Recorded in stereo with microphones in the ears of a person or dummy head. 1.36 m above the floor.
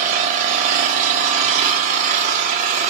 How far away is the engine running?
About 1.8 m.